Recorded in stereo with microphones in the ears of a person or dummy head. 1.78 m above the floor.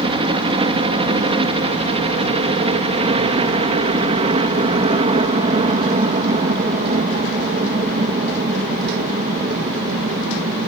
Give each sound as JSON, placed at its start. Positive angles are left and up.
{"t": 0.0, "sound": "a helicopter", "side_deg": -25}